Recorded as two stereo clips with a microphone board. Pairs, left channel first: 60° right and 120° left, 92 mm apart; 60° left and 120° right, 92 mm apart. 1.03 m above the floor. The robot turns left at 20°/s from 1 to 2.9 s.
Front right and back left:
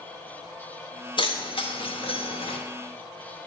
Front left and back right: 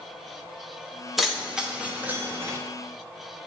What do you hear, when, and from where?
1.2 s keys jangling: 30° right, 1.0 m; by 2.6 s 60° right, 1.0 m